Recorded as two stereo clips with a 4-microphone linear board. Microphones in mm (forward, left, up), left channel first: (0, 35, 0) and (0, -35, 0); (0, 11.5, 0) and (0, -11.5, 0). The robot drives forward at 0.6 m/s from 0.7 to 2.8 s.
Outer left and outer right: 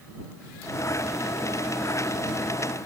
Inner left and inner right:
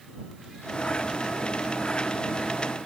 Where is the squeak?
No squeak in this recording.